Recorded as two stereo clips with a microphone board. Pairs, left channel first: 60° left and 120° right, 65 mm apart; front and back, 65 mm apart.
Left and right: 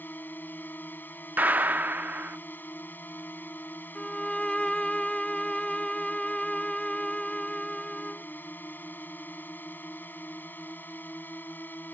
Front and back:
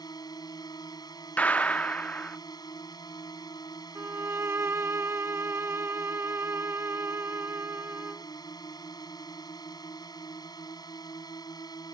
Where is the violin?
135° left.